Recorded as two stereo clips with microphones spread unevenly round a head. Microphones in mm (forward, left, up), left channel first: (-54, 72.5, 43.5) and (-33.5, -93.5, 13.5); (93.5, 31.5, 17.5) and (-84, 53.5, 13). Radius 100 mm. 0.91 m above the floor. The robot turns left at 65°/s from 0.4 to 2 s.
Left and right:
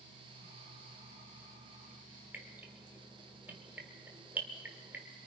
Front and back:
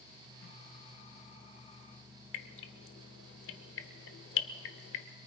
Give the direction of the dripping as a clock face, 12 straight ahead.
12 o'clock.